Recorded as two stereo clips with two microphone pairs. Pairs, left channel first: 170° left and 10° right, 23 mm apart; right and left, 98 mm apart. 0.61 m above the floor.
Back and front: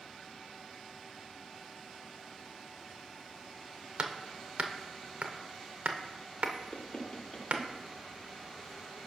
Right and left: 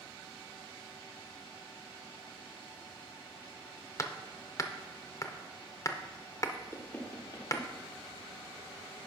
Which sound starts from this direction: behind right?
Knocking, at 6.7 s.